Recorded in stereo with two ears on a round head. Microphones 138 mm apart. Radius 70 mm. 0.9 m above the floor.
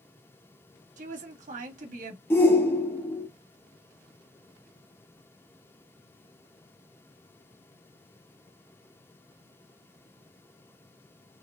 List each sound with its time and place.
1.0 s a woman speaking: 55° right (ahead or behind), 1.4 m
2.3 s a shout: 15° left (ahead or behind), 0.6 m